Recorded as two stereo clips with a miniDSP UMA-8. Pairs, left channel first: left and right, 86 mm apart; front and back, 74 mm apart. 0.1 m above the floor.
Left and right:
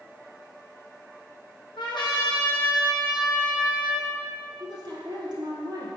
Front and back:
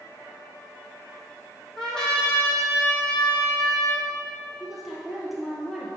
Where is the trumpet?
80° left, 2 m.